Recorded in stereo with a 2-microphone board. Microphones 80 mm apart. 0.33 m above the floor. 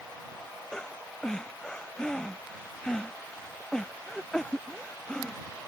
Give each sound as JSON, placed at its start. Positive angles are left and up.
{"t": 0.7, "sound": "breathing", "side_deg": 10}